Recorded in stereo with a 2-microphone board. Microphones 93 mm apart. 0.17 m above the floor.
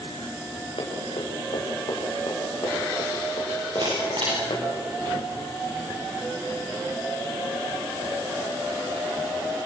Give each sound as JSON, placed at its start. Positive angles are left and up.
{"t": 0.8, "sound": "running footsteps", "side_deg": 75, "distance_m": 7.0}
{"t": 3.8, "sound": "a camera shutter", "side_deg": -60, "distance_m": 8.5}